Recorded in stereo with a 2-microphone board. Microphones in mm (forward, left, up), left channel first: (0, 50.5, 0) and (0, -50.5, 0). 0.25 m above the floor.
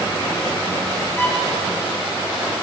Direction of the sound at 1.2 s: 20° left (ahead or behind).